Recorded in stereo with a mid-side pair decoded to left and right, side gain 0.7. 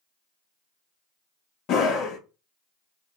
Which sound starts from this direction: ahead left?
A scream, at 1.7 s.